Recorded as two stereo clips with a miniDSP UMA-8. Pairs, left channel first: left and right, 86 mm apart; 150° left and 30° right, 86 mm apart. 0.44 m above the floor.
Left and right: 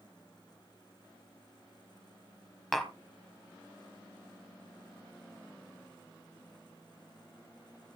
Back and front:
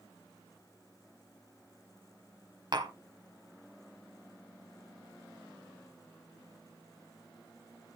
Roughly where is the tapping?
Ahead.